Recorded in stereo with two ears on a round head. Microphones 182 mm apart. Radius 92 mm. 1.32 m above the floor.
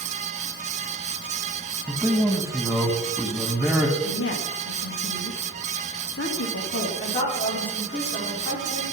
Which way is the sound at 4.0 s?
60° left (ahead or behind).